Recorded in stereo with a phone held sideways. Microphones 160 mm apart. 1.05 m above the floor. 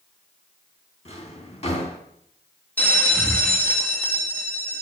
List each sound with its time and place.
1.1 s a drawer: 40° left (ahead or behind), 3 m
2.8 s a bell: 10° left (ahead or behind), 2 m